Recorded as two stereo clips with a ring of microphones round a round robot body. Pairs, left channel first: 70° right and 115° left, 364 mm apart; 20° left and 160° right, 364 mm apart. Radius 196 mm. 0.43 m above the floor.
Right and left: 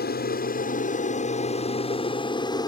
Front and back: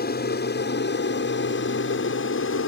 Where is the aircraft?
20° right; by 2.7 s 5° left.